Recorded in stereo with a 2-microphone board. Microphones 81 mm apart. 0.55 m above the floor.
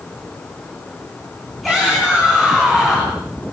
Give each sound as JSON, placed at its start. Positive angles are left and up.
{"t": 1.6, "sound": "a shout", "side_deg": 0, "distance_m": 6.5}